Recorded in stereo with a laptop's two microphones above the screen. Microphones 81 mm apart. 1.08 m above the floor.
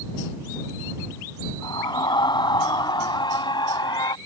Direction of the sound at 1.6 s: 80° left.